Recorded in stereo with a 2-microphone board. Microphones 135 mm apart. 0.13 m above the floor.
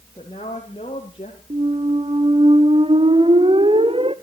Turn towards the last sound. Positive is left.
turn(degrees=-45)  # may be behind; listen again after turning